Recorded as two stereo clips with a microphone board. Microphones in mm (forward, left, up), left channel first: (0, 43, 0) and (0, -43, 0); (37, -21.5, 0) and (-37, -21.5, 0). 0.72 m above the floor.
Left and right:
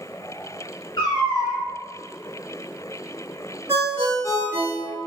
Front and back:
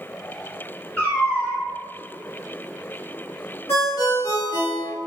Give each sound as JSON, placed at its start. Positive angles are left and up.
{"t": 1.0, "sound": "a cat meowing", "azimuth_deg": 70, "distance_m": 1.0}
{"t": 3.7, "sound": "a ringtone", "azimuth_deg": -35, "distance_m": 1.4}